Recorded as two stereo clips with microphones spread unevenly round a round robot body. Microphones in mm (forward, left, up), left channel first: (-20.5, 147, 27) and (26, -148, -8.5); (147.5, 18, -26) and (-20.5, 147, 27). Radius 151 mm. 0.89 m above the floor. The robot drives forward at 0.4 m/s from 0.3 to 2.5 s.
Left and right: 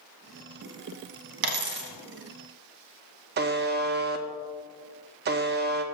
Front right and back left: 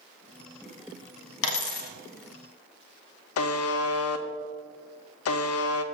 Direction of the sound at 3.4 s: 20° right.